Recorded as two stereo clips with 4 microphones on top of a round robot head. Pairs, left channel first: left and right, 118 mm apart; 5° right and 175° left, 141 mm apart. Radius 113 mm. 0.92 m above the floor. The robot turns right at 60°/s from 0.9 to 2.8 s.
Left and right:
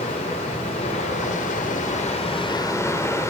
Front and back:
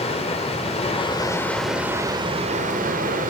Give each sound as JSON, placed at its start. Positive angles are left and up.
{"t": 0.0, "sound": "running water", "azimuth_deg": 40, "distance_m": 2.5}